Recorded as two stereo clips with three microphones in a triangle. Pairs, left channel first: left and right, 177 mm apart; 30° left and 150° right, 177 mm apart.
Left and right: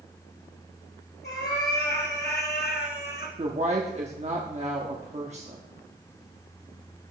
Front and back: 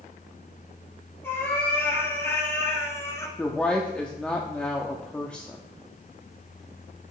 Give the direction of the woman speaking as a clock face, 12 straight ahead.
2 o'clock.